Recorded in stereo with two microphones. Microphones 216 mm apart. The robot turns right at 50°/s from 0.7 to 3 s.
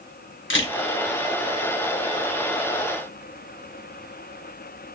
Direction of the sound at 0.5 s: 65° left (ahead or behind).